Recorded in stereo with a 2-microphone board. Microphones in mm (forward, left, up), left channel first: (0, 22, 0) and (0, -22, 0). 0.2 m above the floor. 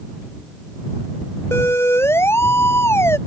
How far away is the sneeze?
I don't hear a sneeze.